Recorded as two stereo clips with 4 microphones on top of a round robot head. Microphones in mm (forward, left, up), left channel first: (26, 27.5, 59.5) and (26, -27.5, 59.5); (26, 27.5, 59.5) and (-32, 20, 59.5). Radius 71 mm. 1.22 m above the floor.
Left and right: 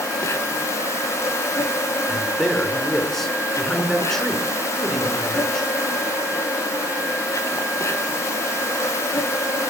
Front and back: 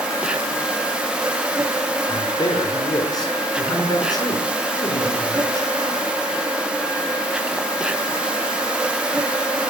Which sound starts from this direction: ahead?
A man speaking, at 2.1 s.